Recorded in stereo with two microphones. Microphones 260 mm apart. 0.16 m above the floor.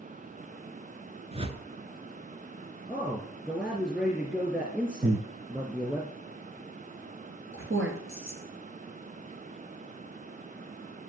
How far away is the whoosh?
About 1.0 m.